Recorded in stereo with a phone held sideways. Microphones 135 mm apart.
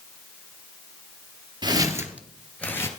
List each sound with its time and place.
1.6 s footsteps: 35° right (ahead or behind), 1.4 m; by 2.9 s 20° left (ahead or behind), 1.3 m